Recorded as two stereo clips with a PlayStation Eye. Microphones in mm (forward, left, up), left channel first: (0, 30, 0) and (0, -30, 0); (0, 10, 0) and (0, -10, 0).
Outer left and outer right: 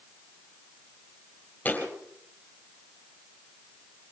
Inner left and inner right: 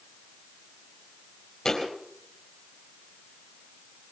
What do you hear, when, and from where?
1.6 s a thud: 30° left (ahead or behind), 3.5 m